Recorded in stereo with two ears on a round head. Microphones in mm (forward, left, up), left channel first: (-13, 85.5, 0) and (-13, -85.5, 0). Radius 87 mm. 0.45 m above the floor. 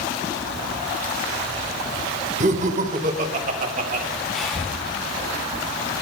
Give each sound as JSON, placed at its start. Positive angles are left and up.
{"t": 2.4, "sound": "laughter", "side_deg": -35, "distance_m": 1.0}
{"t": 4.3, "sound": "breathing", "side_deg": 0, "distance_m": 3.5}